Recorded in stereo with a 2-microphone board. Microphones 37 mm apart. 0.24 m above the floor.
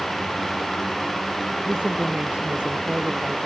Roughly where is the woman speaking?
Right.